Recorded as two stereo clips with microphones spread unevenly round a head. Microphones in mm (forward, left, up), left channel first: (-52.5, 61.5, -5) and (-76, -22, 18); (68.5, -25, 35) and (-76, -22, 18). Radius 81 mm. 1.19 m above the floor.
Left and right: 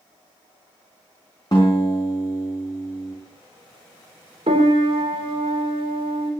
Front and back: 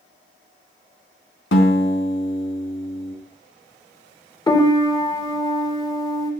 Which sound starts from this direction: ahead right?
A piano, at 4.5 s.